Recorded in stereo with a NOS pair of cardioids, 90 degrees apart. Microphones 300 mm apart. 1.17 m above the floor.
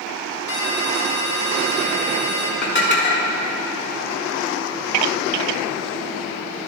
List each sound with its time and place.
0.5 s a ringtone: 35° left, 1.5 m
2.6 s dishes clattering: 35° left, 1.9 m